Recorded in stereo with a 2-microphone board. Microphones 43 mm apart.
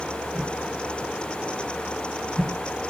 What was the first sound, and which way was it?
A whoosh, 10° right (ahead or behind).